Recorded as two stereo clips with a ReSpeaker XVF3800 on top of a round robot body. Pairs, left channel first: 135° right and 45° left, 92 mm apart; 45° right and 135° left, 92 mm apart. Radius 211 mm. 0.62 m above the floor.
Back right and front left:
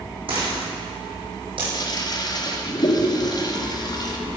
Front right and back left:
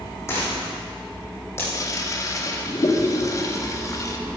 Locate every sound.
0.3 s a dropped coin: 15° left, 6.5 m
1.7 s a toilet flushing: 95° right, 2 m